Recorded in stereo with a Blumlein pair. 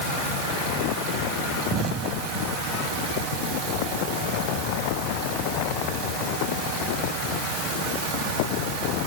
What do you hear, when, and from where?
1.7 s an explosion: 30° right